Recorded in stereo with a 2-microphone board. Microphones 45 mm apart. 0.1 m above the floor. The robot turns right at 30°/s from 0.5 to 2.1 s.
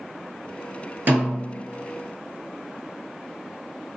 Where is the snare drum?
45° right (ahead or behind), 1.9 m; by 1.7 s 40° right (ahead or behind), 1.9 m.